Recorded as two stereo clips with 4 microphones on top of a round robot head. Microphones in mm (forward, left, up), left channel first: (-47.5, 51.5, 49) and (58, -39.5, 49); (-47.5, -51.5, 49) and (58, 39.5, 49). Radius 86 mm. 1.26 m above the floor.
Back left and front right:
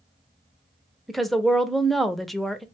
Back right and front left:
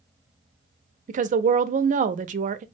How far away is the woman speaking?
About 0.5 m.